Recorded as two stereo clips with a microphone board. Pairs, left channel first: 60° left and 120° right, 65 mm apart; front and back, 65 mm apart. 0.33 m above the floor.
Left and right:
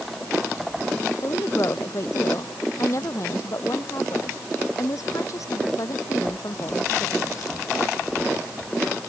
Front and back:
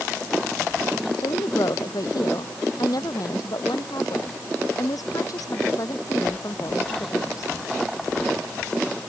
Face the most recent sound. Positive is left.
turn(degrees=30)